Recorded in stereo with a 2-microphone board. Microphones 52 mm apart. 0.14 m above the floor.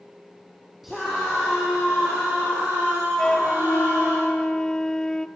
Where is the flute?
15° left (ahead or behind), 0.7 m.